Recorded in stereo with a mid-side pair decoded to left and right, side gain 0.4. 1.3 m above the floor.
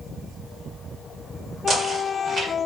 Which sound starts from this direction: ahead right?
Knocking, at 1.7 s.